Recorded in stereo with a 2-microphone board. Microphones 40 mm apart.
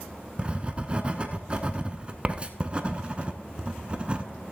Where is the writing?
25° right (ahead or behind), 0.7 m.